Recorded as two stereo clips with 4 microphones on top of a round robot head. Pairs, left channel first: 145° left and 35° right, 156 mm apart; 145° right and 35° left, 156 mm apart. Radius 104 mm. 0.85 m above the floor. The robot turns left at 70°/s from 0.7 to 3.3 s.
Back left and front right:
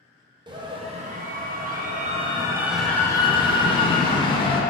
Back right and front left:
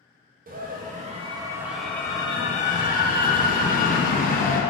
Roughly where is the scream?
Ahead.